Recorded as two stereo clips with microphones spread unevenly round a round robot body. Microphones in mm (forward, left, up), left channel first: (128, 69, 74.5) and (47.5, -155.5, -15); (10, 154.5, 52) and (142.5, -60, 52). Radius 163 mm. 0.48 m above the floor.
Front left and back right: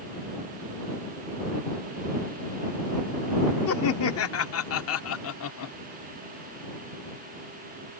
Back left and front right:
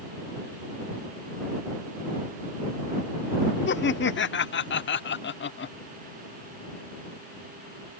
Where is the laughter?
105° left.